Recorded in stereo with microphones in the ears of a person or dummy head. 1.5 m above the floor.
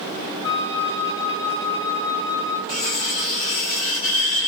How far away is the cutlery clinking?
About 2 m.